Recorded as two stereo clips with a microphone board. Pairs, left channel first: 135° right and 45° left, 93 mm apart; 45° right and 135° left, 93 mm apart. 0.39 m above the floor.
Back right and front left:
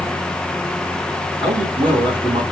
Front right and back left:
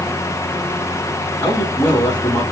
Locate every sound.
1.4 s a man speaking: 20° left, 3 m